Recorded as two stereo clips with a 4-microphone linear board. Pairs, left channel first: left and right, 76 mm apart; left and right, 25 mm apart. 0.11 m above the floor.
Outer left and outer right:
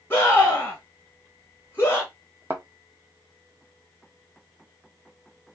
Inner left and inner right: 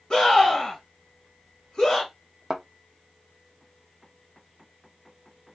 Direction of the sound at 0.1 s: 25° left (ahead or behind).